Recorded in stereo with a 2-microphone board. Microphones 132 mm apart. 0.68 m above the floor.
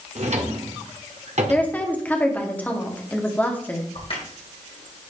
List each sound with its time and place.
0.1 s a drawer: 65° right (ahead or behind), 1.3 m
1.5 s a woman speaking: 15° left (ahead or behind), 1.3 m
4.0 s a crack: 50° left (ahead or behind), 2 m